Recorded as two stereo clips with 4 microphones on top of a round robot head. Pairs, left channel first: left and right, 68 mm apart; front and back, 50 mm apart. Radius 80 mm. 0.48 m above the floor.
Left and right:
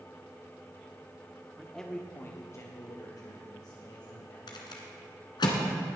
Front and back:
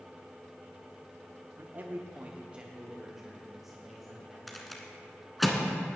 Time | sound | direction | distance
1.6 | a man speaking | 175° right | 1.1 m
4.5 | a rattle | 90° left | 1.8 m